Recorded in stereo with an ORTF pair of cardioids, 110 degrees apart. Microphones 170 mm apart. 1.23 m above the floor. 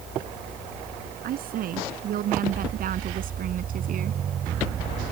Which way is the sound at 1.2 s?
60° right.